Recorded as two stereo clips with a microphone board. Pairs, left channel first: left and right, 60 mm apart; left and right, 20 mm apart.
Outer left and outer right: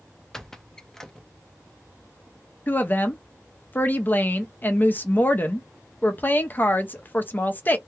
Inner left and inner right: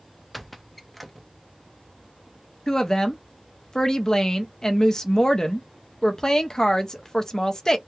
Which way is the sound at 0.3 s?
5° left (ahead or behind).